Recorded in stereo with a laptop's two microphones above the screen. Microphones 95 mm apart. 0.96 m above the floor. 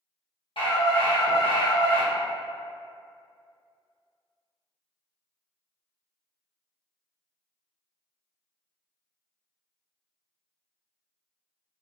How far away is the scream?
About 0.9 m.